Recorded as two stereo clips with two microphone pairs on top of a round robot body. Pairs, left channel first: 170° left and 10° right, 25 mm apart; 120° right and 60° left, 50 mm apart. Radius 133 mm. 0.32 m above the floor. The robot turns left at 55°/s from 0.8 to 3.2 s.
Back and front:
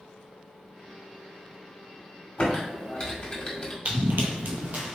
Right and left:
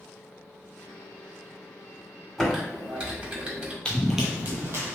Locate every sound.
2.4 s typing on a keyboard: 150° left, 1.7 m; by 3.8 s 105° left, 1.7 m
3.9 s running footsteps: 50° right, 0.5 m; by 5.0 s 25° left, 0.8 m